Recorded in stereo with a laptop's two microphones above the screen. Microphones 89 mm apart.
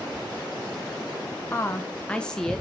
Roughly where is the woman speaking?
Left.